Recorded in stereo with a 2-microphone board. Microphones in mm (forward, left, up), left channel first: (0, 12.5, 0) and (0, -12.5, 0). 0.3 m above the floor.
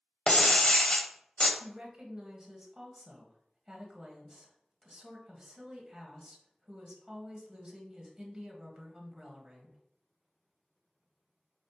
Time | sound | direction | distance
0.3 | breaking glass | 35° left (ahead or behind) | 0.6 m
1.6 | a woman speaking | 20° right (ahead or behind) | 1.3 m